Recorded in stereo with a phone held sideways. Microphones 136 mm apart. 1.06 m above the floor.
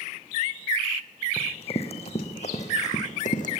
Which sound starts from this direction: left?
Running footsteps, at 1.4 s.